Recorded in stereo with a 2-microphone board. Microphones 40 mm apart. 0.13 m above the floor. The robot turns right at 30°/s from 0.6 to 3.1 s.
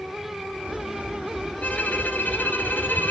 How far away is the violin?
About 2.5 m.